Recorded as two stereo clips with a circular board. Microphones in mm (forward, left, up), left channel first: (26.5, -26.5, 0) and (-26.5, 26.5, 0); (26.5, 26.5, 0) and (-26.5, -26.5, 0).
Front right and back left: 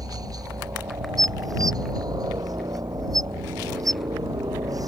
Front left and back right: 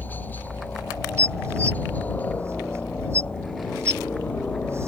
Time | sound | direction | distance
0.0 | a helicopter | 105° left | ?
1.2 | dishes clattering | 170° left | ?